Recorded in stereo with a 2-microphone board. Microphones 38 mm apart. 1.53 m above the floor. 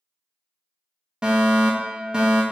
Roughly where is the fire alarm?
Right.